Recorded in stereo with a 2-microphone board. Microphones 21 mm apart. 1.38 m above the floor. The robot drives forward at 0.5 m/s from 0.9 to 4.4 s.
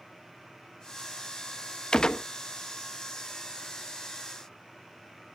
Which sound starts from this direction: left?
A gunshot, at 1.9 s.